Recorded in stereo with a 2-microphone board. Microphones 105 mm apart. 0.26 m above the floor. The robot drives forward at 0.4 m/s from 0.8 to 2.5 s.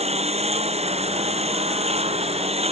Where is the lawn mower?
90° right; by 2.7 s 80° right.